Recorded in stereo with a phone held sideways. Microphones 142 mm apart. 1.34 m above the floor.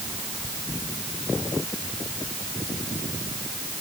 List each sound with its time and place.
Only background noise.